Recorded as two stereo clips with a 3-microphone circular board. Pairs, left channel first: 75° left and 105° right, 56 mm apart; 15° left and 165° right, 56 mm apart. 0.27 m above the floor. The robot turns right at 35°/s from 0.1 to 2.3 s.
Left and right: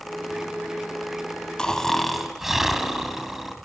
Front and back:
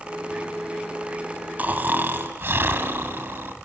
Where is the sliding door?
No sliding door in this recording.